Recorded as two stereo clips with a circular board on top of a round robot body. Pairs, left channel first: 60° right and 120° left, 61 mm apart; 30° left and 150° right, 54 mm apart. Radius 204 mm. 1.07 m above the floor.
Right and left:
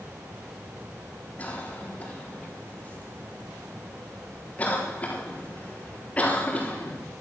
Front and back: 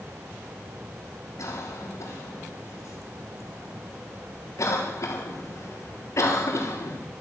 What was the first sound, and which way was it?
A cough, 5° left.